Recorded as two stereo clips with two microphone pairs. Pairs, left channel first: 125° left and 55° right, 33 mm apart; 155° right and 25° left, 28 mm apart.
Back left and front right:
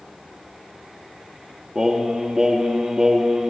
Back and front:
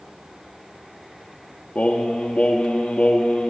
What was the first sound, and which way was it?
Singing, 125° right.